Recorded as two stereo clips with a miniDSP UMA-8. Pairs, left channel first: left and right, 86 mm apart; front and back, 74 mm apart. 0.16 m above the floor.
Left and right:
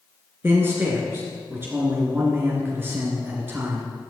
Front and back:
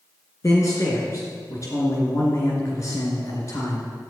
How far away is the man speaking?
About 2.5 m.